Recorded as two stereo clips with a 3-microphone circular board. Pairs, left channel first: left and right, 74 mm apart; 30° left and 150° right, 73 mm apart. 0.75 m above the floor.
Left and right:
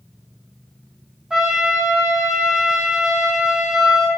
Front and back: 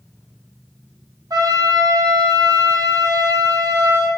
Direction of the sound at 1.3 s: 170° right.